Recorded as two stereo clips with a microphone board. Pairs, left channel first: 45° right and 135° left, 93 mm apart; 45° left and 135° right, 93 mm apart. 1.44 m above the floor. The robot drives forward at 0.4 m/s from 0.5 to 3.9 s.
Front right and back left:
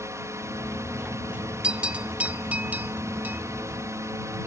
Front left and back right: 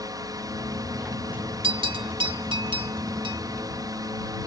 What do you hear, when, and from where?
0.0 s a drone: 175° right
1.6 s a bell: 145° right; by 3.4 s 155° right